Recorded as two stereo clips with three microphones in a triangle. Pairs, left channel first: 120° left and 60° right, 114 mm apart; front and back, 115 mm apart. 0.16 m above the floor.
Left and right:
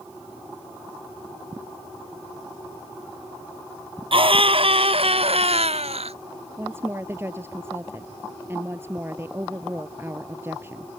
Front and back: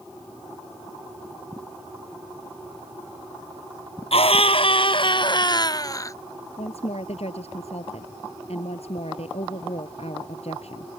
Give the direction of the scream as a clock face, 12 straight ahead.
1 o'clock.